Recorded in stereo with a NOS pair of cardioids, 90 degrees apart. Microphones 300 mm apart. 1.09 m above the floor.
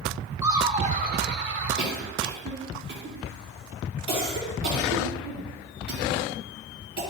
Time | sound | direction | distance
0.4 | laughter | 10° right | 1.1 m
1.8 | a cough | 40° right | 3.5 m